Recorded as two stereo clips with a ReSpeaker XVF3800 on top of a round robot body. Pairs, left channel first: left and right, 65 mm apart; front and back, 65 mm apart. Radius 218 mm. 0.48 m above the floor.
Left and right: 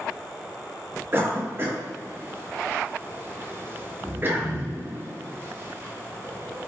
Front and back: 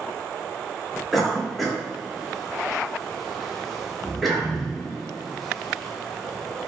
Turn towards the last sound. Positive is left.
turn(degrees=-85)